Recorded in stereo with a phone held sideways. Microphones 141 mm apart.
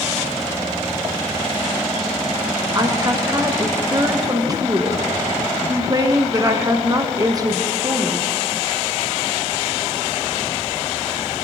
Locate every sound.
2.8 s a woman speaking: 30° right (ahead or behind), 1.1 m